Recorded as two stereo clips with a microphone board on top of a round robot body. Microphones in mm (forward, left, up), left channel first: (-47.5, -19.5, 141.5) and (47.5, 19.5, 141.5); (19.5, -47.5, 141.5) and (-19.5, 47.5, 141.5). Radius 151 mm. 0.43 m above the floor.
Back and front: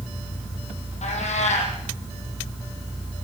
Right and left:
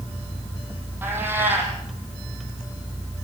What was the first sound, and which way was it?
A cat meowing, 175° right.